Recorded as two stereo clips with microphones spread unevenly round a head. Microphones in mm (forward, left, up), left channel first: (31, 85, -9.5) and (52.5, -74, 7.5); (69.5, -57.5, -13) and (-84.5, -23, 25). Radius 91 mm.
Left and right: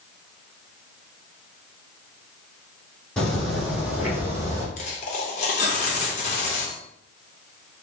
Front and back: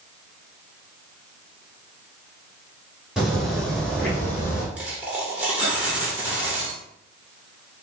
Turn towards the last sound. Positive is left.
turn(degrees=110)